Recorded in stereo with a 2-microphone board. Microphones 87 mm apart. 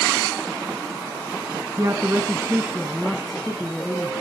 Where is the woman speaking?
35° right (ahead or behind), 1.2 m; by 4.1 s 10° left (ahead or behind), 1.9 m.